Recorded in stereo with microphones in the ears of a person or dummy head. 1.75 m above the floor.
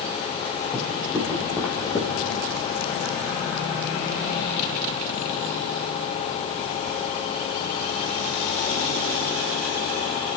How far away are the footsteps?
About 2.5 m.